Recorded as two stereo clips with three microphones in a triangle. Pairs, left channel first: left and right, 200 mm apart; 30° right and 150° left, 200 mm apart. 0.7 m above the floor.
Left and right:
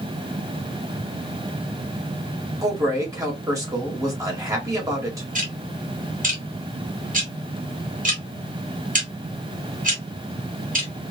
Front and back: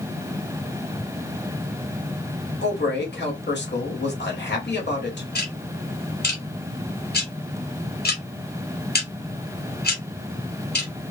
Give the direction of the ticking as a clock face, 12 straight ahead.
2 o'clock.